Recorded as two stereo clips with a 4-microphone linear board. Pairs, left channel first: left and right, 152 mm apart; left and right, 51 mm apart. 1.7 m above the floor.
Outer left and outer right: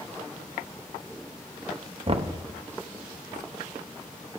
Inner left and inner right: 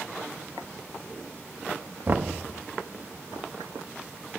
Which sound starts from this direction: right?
Knocking, at 2.1 s.